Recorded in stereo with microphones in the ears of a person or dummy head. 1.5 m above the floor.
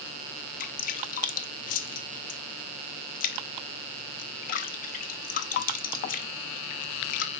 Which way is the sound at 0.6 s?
45° left (ahead or behind).